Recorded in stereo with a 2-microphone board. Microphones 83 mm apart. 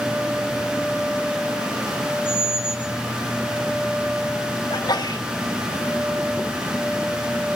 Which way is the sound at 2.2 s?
15° right (ahead or behind).